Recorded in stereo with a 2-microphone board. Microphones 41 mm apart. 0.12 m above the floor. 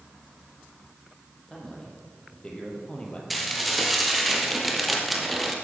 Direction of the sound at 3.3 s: Centre (ahead or behind).